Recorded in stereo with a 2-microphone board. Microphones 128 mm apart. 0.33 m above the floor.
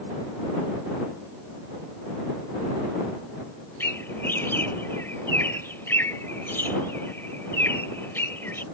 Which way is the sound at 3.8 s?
15° left (ahead or behind).